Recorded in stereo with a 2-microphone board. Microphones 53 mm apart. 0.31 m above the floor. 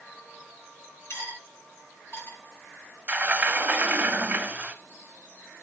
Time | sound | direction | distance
1.1 | cutlery clinking | 50° left (ahead or behind) | 1.9 m
3.1 | a sliding door | 30° right (ahead or behind) | 0.6 m